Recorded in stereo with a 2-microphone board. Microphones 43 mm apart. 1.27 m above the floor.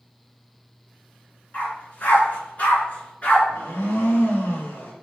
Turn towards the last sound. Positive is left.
turn(degrees=65)  # may be behind; listen again after turning